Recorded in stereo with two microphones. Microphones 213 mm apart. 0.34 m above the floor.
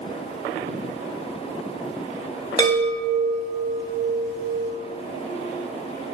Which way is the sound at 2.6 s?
20° left (ahead or behind).